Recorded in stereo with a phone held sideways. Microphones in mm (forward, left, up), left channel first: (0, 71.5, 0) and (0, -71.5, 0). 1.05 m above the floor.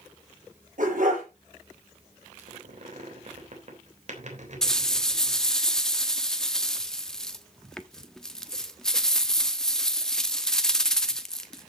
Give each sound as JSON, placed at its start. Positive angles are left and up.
{"t": 0.8, "sound": "a dog barking", "side_deg": -65, "distance_m": 6.0}
{"t": 2.4, "sound": "a squeak", "side_deg": -55, "distance_m": 3.5}
{"t": 4.6, "sound": "a rattle", "side_deg": 5, "distance_m": 1.0}